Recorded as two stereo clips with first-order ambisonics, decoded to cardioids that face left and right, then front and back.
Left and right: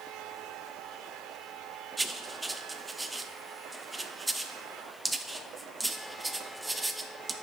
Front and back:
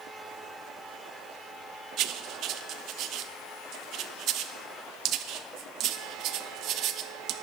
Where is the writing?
170° right, 0.5 m.